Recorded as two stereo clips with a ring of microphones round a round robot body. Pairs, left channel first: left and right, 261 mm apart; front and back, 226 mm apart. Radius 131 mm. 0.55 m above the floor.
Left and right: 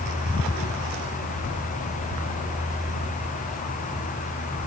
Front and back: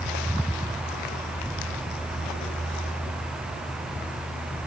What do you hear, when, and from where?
Only background noise.